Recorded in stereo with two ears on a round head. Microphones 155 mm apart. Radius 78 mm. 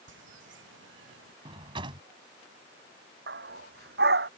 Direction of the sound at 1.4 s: 30° right (ahead or behind).